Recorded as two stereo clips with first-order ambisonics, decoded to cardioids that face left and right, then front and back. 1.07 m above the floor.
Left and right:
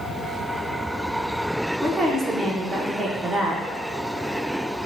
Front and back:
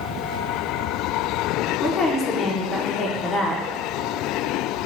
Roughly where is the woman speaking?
Ahead right.